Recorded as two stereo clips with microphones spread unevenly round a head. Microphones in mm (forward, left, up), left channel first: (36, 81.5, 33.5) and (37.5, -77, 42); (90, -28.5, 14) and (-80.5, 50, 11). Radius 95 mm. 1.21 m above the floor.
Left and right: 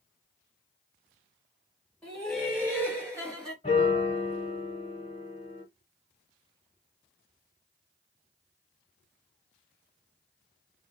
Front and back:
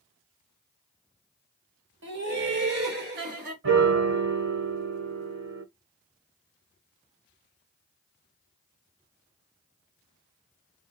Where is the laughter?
170° left, 1.4 m; by 3.5 s 155° right, 1.3 m.